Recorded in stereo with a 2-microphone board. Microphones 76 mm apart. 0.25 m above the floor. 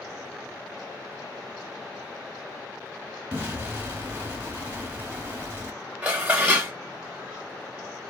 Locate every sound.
3.3 s an explosion: 20° right (ahead or behind), 1.0 m
6.0 s dishes clattering: 15° right (ahead or behind), 0.7 m